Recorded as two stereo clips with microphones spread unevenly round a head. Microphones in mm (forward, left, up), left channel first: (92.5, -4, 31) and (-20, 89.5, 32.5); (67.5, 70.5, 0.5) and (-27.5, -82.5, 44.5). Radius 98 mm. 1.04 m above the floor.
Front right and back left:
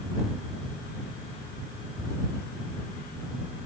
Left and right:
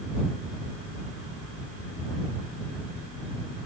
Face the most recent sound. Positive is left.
No sound to turn to.